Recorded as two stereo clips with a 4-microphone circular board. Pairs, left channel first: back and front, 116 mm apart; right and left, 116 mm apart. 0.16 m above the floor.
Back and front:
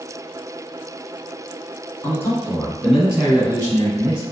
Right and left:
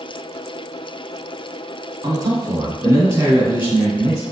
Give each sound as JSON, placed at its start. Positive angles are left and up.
{"t": 2.0, "sound": "a man speaking", "azimuth_deg": 125, "distance_m": 1.4}